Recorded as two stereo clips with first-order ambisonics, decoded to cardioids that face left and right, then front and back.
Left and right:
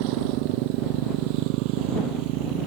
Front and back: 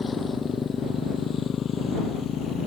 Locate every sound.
0.0 s a motorcycle: 75° right; by 2.7 s 60° right